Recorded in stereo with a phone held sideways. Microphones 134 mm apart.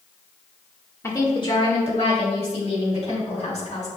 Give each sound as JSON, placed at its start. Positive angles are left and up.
{"t": 1.0, "sound": "a woman speaking", "side_deg": 20, "distance_m": 1.4}